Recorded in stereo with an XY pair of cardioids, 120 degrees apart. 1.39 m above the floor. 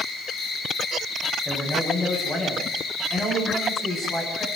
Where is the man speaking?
20° left, 9.5 m.